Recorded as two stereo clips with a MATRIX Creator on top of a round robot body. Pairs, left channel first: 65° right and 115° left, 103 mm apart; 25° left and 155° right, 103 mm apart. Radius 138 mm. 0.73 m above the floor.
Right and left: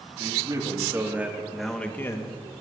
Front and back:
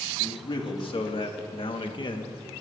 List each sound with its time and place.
0.2 s a man speaking: 60° left, 2 m; by 2.4 s 25° right, 1.3 m